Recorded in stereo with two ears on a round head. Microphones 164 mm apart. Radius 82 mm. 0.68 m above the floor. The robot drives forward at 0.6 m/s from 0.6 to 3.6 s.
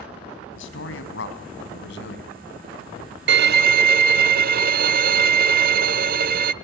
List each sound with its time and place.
0.6 s a man speaking: 80° left, 4.5 m; by 2.3 s 65° left (ahead or behind), 4.5 m
3.3 s a violin: 65° right (ahead or behind), 0.6 m; by 6.5 s 55° right (ahead or behind), 0.7 m